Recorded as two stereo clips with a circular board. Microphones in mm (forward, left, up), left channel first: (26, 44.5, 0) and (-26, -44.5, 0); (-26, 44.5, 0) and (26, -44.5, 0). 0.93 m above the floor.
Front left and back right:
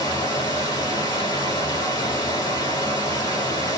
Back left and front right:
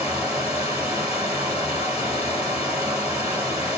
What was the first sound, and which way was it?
Running water, 15° left.